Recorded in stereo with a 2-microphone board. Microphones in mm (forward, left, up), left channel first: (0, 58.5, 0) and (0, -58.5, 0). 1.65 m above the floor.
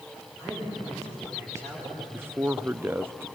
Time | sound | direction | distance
0.4 | a man speaking | 30° right (ahead or behind) | 6.5 m
2.1 | a man speaking | 20° right (ahead or behind) | 0.7 m